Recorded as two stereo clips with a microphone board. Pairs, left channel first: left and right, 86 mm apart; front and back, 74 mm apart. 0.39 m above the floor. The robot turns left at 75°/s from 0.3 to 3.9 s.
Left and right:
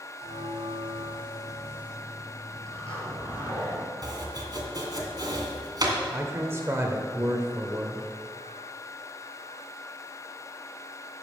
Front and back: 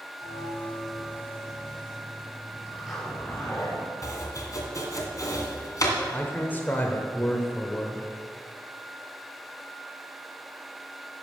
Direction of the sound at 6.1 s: 50° right.